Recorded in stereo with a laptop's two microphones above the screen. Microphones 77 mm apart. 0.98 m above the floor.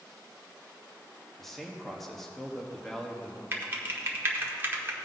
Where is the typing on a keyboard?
30° right (ahead or behind), 1.0 m.